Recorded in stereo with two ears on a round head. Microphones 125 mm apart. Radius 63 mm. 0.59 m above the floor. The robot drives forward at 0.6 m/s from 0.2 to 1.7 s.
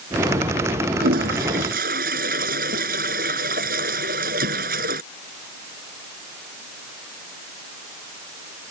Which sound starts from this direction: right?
A toilet flushing, at 1.0 s.